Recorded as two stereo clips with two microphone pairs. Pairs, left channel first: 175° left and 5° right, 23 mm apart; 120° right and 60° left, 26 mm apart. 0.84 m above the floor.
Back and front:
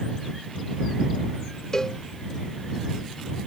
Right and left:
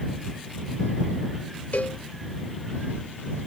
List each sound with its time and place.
1.7 s a cowbell: 125° right